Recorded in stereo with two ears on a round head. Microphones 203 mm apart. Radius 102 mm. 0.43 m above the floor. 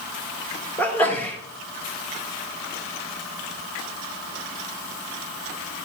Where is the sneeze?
10° left (ahead or behind), 1.0 m.